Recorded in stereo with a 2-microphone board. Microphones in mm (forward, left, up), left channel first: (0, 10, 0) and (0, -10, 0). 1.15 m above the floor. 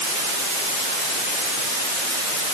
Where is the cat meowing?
No cat meowing in this recording.